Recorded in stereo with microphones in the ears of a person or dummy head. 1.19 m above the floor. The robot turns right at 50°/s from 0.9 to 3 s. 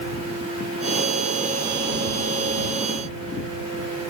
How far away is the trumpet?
I don't hear a trumpet.